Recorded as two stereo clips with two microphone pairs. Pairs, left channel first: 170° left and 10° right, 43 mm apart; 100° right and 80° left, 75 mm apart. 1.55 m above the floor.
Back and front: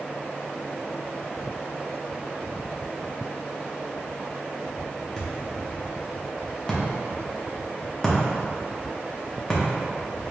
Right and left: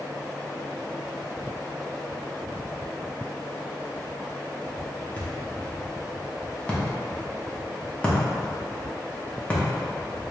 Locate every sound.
5.2 s a thud: 125° right, 0.8 m